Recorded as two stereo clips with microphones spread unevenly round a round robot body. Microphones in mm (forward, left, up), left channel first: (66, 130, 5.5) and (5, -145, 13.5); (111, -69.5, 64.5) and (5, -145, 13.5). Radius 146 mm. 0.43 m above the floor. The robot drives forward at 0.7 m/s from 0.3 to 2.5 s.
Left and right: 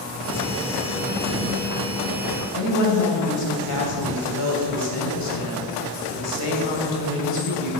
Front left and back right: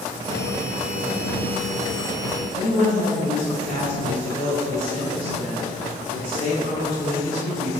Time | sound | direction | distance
2.5 | a woman speaking | 90° left | 2.5 m